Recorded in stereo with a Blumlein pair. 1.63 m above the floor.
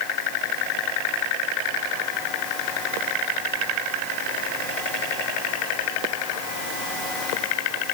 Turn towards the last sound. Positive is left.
No sound to turn to.